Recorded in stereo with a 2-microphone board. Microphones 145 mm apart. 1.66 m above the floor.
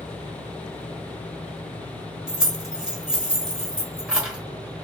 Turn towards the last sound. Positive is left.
turn(degrees=-5)  # may be behind; listen again after turning